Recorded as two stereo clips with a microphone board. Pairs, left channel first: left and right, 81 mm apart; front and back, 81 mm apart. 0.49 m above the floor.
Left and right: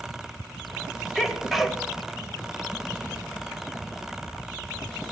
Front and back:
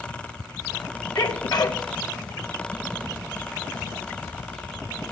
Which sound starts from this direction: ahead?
A sneeze, at 1.1 s.